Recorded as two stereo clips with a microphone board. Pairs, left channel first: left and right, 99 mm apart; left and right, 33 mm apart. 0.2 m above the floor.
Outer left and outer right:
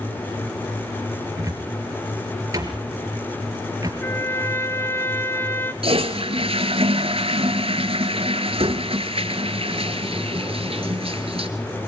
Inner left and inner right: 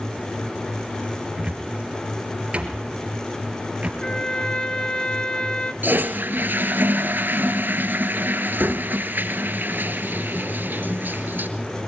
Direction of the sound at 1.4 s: 35° right (ahead or behind).